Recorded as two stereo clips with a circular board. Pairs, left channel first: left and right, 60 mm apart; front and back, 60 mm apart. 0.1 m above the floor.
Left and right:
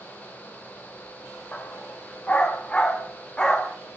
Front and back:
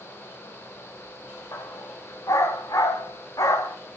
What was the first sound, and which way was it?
A dog barking, 30° left.